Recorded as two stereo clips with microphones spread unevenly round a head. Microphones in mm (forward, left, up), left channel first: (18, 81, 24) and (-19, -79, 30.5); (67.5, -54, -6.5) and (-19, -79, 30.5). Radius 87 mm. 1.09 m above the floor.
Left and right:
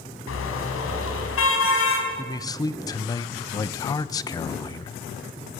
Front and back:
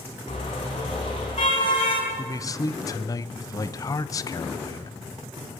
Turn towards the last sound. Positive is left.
turn(degrees=15)